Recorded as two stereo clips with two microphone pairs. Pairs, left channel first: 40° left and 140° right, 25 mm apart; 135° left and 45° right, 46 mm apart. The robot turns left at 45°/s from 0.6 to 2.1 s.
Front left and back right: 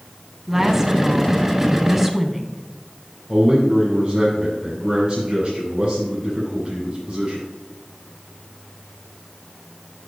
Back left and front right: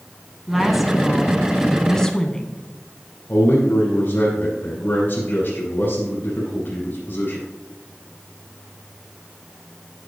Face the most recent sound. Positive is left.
turn(degrees=180)